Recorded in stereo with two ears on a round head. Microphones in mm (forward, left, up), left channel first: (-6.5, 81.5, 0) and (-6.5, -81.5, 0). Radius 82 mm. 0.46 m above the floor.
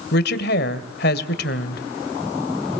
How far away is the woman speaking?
About 2 m.